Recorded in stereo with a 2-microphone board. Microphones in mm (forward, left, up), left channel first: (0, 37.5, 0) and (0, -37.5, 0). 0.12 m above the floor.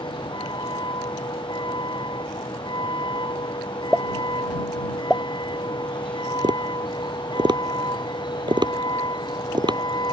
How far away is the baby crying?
No baby crying in this recording.